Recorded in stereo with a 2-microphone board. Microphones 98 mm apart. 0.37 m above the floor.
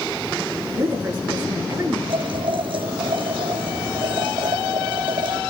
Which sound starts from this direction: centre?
A woman speaking, at 0.8 s.